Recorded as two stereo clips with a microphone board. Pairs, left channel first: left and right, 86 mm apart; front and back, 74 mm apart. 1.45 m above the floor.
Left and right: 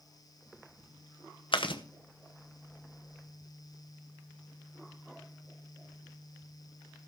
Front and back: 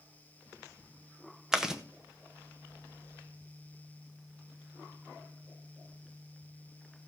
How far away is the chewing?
About 1.2 m.